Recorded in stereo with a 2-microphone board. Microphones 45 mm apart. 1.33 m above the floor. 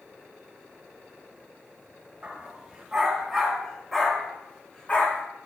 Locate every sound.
2.2 s a dog barking: 25° right (ahead or behind), 2.5 m; by 5.2 s 30° left (ahead or behind), 1.6 m